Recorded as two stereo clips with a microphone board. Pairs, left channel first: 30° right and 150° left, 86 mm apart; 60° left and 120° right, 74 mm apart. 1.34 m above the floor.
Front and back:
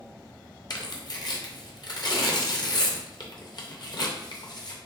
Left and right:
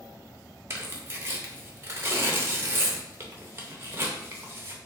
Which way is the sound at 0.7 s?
65° right.